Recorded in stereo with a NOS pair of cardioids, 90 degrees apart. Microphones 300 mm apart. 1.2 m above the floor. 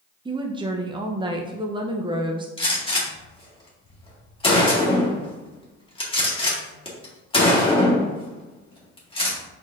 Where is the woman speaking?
15° right, 0.5 m.